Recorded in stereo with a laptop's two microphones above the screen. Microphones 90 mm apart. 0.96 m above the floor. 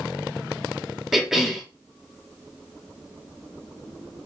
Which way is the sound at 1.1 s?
5° right (ahead or behind).